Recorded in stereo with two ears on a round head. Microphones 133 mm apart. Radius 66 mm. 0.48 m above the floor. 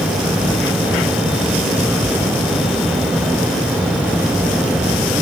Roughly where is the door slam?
No door slam in this recording.